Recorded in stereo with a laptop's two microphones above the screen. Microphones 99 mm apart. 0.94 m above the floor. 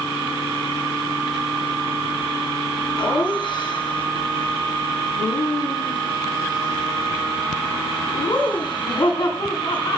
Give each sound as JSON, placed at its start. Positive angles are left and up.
{"t": 3.0, "sound": "laughter", "side_deg": 50, "distance_m": 8.0}